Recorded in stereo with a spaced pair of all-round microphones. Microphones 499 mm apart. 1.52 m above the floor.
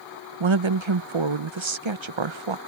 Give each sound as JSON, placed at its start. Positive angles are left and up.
{"t": 0.4, "sound": "a woman speaking", "side_deg": -65}